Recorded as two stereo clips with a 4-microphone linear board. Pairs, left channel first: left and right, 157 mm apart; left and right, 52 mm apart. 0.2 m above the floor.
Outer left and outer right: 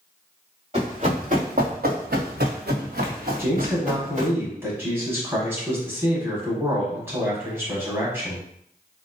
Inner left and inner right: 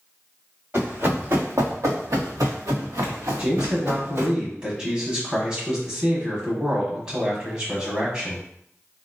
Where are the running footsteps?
45° right (ahead or behind), 1.4 m.